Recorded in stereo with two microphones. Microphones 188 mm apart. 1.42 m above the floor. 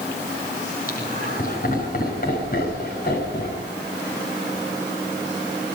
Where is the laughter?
50° left (ahead or behind), 7.5 m.